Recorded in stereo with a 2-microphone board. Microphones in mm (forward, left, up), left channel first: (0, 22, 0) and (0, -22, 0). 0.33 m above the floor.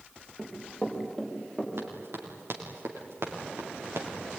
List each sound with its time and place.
0.4 s running footsteps: centre (ahead or behind), 6.5 m; by 1.7 s 5° left (ahead or behind), 6 m
1.8 s running footsteps: 80° right, 6 m; by 4.1 s 85° right, 5 m